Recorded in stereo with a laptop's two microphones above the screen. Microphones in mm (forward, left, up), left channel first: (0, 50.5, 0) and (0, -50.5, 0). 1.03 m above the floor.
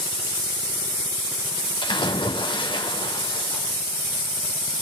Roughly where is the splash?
Left.